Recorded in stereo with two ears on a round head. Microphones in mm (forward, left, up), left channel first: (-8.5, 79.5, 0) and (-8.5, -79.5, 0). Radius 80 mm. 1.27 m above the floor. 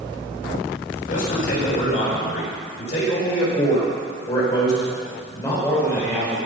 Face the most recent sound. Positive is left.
turn(degrees=10)  # may be behind; listen again after turning